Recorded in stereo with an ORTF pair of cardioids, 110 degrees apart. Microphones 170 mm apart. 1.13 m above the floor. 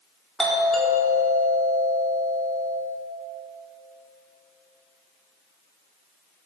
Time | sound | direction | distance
0.4 | a doorbell | straight ahead | 4.5 m